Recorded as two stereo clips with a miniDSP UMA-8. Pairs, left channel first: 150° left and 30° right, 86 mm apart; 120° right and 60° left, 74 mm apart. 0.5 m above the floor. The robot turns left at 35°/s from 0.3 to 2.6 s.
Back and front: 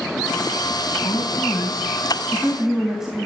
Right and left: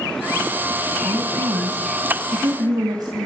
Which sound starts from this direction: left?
A woman speaking, at 1.0 s.